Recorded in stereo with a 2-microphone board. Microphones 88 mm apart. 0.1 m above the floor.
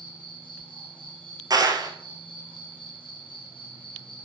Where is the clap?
45° right (ahead or behind), 1.5 m.